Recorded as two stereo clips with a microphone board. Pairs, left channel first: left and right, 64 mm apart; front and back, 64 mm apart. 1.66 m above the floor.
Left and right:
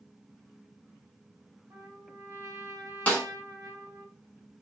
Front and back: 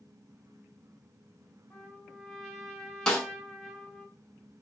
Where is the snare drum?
60° left, 1.1 m.